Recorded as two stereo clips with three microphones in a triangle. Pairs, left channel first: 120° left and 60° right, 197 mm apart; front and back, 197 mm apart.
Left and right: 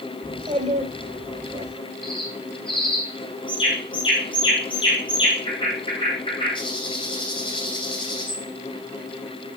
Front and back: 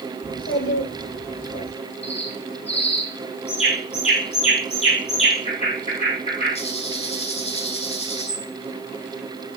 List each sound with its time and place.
0.2 s a child speaking: straight ahead, 6.5 m; by 1.7 s 10° left, 6.5 m
2.0 s a bird: 55° left, 5 m